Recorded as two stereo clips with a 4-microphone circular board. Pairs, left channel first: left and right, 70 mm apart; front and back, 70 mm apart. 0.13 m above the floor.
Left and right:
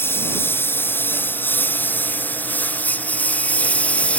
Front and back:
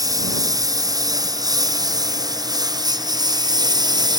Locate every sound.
0.0 s a lawn mower: 150° left; by 4.2 s 165° left